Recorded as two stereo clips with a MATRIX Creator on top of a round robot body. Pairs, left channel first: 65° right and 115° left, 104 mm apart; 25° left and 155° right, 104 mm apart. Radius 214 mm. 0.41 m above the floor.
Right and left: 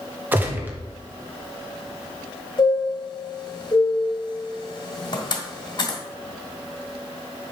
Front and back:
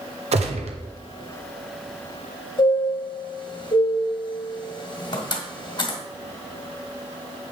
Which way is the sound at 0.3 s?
175° right.